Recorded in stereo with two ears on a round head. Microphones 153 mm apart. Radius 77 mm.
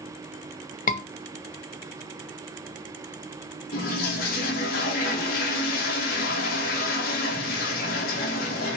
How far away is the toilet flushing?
About 2.5 m.